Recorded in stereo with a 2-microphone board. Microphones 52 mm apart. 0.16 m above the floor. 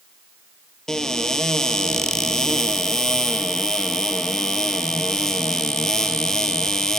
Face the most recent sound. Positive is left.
turn(degrees=10)  # may be behind; listen again after turning